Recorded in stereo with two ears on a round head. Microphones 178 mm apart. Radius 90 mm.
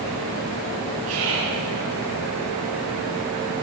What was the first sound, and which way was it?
Whispering, 75° right (ahead or behind).